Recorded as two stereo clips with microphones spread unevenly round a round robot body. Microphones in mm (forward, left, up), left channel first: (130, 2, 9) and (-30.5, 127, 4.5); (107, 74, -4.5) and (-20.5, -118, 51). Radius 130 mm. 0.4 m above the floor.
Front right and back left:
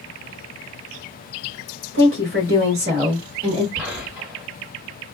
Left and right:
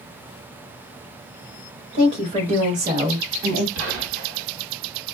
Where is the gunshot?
140° right, 1.6 m.